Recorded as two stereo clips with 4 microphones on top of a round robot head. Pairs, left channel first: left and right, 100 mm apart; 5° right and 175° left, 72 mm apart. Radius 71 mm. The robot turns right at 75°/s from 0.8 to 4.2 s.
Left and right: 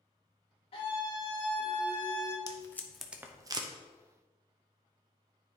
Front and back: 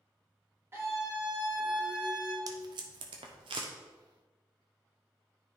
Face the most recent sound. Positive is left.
turn(degrees=-90)